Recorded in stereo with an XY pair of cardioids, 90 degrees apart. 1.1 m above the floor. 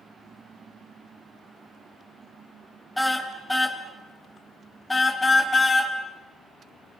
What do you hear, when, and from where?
3.0 s a car horn: 10° left, 3.5 m; by 5.9 s 30° left, 4 m